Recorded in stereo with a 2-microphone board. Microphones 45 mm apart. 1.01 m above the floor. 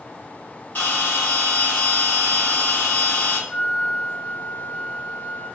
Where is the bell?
50° left (ahead or behind), 1.6 m.